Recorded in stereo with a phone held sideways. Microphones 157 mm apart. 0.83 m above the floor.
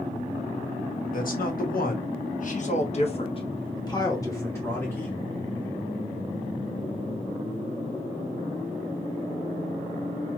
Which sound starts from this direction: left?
A man speaking, at 1.1 s.